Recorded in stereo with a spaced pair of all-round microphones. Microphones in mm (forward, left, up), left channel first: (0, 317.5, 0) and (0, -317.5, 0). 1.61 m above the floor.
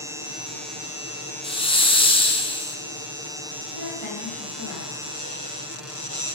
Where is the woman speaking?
50° left (ahead or behind), 2 m.